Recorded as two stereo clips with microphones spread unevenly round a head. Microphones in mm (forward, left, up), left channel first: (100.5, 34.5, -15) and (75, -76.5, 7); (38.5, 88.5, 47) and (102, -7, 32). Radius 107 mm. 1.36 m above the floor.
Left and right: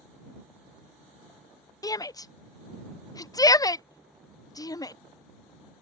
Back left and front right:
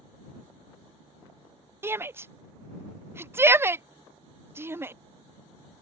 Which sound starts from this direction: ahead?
A shout, at 1.8 s.